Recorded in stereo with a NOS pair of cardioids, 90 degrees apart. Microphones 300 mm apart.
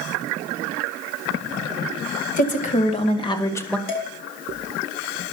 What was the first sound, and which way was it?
A woman speaking, 30° left.